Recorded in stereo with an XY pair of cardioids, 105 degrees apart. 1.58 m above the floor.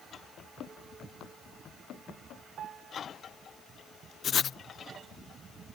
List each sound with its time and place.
0.4 s running footsteps: 65° left; by 2.5 s 70° left
2.6 s a piano: 60° right
4.2 s writing: 50° left